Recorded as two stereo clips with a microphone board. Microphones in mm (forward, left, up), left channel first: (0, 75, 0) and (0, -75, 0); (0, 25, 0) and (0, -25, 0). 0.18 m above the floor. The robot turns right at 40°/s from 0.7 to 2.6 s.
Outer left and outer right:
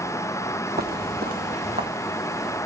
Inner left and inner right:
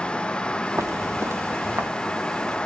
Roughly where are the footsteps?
Right.